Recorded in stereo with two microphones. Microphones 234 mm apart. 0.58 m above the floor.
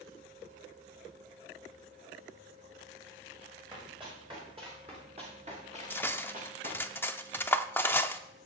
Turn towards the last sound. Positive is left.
turn(degrees=10)  # may be behind; listen again after turning